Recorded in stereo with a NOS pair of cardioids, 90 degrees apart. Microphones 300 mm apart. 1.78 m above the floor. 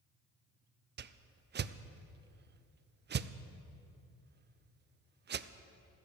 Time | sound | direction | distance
1.0 | a whoosh | 35° right | 0.6 m